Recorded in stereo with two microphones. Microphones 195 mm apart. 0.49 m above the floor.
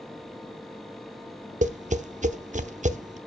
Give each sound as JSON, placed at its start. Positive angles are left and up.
{"t": 1.6, "sound": "tapping", "side_deg": -40, "distance_m": 0.9}